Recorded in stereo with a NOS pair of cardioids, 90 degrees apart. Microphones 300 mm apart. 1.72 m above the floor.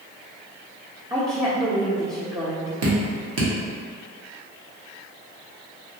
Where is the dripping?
55° right, 1.2 m.